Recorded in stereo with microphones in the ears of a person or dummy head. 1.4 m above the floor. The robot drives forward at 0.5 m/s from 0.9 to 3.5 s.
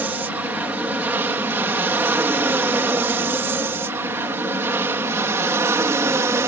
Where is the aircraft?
5° right (ahead or behind); by 6.5 s 15° right (ahead or behind).